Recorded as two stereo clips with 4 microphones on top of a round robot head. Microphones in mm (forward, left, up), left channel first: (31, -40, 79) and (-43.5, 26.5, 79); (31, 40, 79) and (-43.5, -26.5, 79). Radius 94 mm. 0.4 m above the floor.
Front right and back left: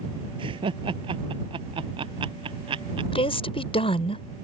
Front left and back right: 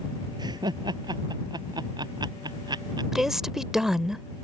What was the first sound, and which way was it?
Laughter, 175° left.